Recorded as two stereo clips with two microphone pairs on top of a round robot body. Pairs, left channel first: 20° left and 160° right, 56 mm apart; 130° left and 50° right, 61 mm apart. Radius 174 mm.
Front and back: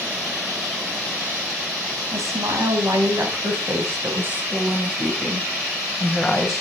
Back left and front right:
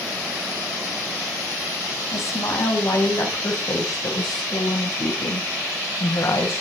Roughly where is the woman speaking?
Behind.